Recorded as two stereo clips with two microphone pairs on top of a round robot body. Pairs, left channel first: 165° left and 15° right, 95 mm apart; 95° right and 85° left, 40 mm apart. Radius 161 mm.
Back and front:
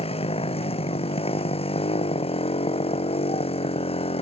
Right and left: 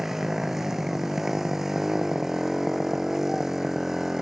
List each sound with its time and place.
0.0 s a motorcycle: 165° left